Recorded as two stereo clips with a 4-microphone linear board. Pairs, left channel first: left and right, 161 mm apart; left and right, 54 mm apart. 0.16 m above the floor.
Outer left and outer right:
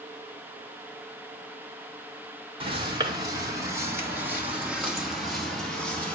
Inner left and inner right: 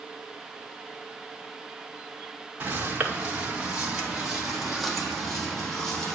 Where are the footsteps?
30° right (ahead or behind), 3.5 m; by 6.2 s 10° left (ahead or behind), 4 m.